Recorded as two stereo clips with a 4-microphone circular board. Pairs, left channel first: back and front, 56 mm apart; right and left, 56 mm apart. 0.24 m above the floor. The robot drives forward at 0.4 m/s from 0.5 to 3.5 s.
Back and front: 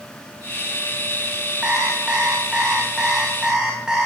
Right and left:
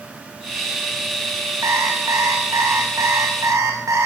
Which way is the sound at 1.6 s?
70° left.